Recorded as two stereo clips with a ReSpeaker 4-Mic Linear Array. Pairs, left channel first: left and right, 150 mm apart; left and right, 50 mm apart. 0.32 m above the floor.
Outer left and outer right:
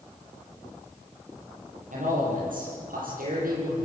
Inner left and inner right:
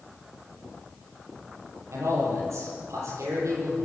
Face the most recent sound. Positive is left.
turn(degrees=-75)  # may be behind; listen again after turning